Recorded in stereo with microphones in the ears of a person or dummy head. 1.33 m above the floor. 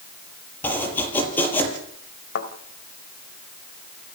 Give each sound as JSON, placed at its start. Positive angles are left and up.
{"t": 0.6, "sound": "chopping", "side_deg": 10, "distance_m": 6.0}
{"t": 2.4, "sound": "a thud", "side_deg": 75, "distance_m": 2.5}